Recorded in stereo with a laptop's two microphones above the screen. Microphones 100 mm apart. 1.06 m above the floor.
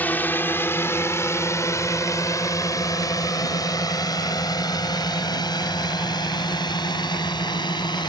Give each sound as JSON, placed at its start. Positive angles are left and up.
{"t": 0.0, "sound": "a drone", "side_deg": 20}